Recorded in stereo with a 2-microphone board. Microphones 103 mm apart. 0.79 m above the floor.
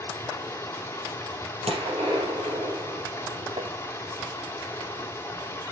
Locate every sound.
0.0 s running water: 20° left (ahead or behind), 1.6 m
1.7 s a gunshot: 80° right, 4 m
3.6 s tapping: 75° right (ahead or behind), 0.7 m